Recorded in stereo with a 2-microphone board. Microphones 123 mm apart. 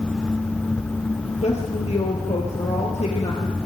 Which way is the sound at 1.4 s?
60° left (ahead or behind).